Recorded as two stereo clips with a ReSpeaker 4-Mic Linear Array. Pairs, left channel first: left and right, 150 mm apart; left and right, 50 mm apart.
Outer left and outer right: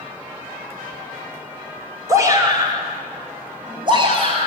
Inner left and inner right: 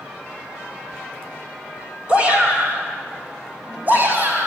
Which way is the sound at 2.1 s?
20° right (ahead or behind).